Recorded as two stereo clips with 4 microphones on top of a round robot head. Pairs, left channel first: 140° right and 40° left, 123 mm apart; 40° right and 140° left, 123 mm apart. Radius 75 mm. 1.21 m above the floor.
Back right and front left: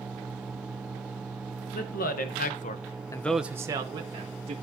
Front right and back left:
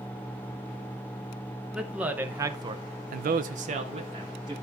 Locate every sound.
1.7 s a man speaking: 135° right, 1.3 m; by 4.5 s 85° left, 1.4 m